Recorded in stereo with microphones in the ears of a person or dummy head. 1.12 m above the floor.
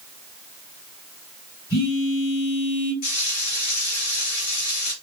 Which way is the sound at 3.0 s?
45° left (ahead or behind).